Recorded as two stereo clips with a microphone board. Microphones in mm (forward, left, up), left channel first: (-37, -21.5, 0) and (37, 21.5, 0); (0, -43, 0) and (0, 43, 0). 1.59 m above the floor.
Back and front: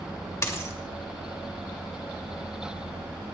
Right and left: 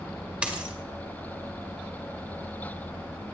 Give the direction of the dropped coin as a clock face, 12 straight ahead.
7 o'clock.